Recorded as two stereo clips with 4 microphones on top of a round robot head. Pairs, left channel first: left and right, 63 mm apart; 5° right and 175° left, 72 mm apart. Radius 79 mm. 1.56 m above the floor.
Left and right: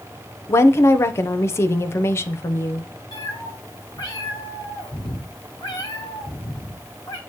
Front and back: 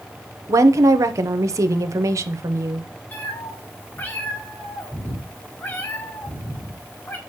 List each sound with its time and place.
0.5 s a woman speaking: 135° left, 0.7 m
3.1 s a cat meowing: 50° left, 1.5 m